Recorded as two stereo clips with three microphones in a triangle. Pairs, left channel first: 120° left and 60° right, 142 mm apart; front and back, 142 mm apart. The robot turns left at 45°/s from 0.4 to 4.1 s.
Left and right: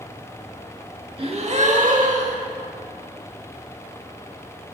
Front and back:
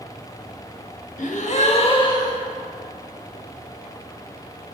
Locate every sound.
1.2 s a gasp: 15° right, 0.8 m; by 2.5 s 70° right, 0.8 m